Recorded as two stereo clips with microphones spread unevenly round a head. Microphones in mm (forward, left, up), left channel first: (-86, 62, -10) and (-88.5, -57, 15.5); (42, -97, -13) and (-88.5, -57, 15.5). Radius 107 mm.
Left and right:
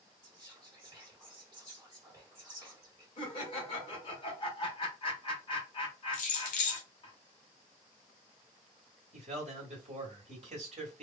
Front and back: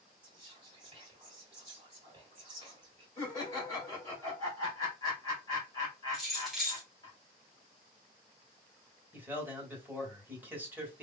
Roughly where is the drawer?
No drawer in this recording.